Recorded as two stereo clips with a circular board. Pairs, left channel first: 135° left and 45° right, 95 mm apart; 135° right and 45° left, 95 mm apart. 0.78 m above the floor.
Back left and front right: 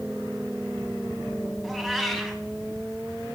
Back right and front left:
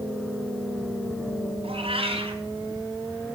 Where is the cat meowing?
45° left, 3 m.